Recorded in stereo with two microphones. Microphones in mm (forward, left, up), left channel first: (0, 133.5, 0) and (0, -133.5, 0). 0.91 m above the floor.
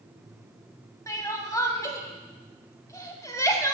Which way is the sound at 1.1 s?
10° left (ahead or behind).